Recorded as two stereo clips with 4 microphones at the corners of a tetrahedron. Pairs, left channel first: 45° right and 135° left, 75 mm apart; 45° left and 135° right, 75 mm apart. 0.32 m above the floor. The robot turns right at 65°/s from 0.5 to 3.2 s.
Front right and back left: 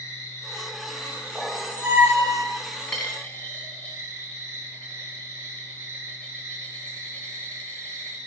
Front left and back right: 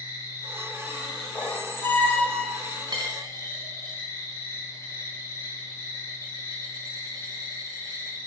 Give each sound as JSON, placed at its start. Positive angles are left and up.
{"t": 0.0, "sound": "an insect", "azimuth_deg": -85, "distance_m": 3.0}
{"t": 1.4, "sound": "a squeak", "azimuth_deg": 50, "distance_m": 0.7}
{"t": 2.9, "sound": "a dropped coin", "azimuth_deg": -125, "distance_m": 1.1}